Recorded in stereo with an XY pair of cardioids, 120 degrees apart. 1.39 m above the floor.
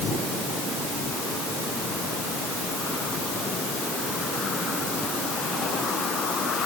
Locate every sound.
Only background noise.